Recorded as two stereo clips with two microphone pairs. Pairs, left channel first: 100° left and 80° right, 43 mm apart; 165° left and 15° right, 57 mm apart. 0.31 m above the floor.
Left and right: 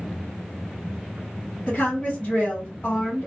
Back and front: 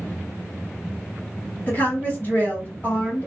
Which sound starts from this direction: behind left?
A woman speaking, at 1.7 s.